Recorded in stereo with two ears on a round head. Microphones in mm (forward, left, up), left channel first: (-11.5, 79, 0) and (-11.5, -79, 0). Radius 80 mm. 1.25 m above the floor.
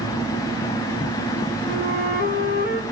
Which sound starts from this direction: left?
A flute, at 1.7 s.